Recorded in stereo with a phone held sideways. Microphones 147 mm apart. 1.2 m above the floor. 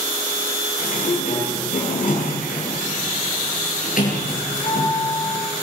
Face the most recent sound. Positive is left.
turn(degrees=65)  # may be behind; listen again after turning